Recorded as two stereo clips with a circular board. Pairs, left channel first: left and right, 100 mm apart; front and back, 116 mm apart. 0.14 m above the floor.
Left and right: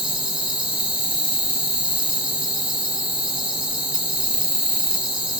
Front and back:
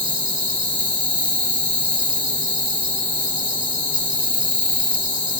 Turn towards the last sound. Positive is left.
turn(degrees=135)